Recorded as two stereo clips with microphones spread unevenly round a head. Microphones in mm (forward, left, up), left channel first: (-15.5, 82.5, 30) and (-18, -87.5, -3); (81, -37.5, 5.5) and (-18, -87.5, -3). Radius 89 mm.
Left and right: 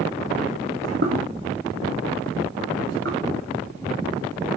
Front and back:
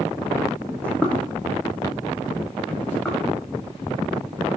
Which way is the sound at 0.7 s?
50° right.